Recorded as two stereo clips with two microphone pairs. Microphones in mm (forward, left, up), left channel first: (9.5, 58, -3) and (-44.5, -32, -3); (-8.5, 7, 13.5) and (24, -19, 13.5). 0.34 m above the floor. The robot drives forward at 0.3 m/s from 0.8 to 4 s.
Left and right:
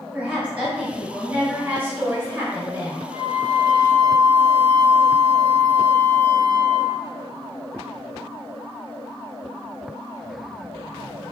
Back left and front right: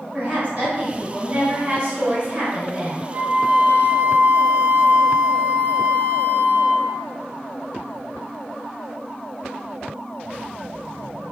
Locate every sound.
0.1 s a woman speaking: 50° right, 1.6 m; by 3.0 s 90° right, 1.5 m
3.1 s a flute: 55° right, 0.8 m; by 7.1 s 70° right, 0.7 m